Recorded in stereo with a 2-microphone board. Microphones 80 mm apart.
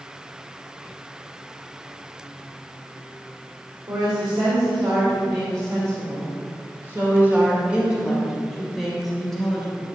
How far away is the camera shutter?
I don't hear a camera shutter.